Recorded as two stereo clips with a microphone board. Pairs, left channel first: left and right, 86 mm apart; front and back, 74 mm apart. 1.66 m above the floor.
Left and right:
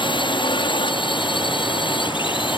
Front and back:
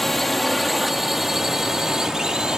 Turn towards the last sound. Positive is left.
turn(degrees=100)